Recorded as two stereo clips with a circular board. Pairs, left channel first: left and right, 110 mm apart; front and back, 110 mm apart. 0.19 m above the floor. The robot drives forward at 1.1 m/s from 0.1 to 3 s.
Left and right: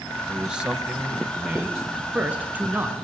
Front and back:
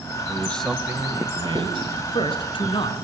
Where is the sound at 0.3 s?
20° right, 1.0 m; by 1.8 s 175° right, 1.6 m.